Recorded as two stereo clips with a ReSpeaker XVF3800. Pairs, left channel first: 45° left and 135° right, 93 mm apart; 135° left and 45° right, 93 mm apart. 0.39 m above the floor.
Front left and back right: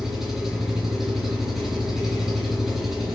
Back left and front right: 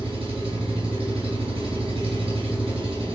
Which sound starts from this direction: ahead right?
An engine running, at 0.0 s.